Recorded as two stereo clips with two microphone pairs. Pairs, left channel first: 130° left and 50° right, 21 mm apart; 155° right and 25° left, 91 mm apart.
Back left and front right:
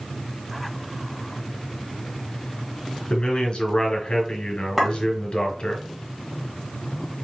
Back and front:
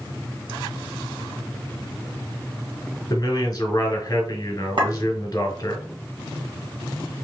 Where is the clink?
45° left, 2 m.